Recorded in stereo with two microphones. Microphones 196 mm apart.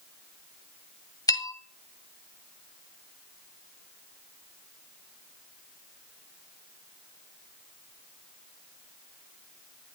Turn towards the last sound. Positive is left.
turn(degrees=20)  # may be behind; listen again after turning